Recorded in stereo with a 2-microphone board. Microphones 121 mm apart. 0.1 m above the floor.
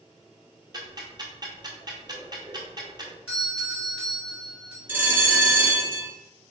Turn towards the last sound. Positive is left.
turn(degrees=-20)  # may be behind; listen again after turning